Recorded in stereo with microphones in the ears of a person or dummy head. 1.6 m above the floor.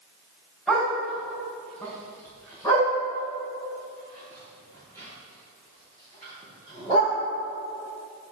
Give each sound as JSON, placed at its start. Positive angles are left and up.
{"t": 0.7, "sound": "a dog barking", "side_deg": 5, "distance_m": 3.0}